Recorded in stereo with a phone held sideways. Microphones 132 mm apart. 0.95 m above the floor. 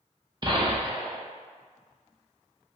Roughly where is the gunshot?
Right.